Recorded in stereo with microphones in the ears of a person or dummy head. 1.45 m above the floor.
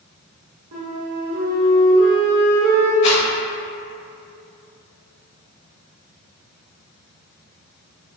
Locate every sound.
0.7 s a flute: 50° right (ahead or behind), 1.5 m
3.0 s a rattle: 40° left (ahead or behind), 0.9 m